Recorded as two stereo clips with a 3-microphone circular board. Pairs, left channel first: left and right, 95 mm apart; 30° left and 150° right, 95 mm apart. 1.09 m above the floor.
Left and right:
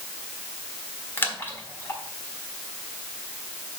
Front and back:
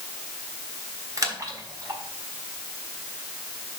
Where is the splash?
155° left, 1.5 m.